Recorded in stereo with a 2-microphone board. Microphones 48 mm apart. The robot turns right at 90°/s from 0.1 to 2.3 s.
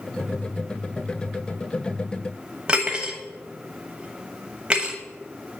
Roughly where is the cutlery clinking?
Right.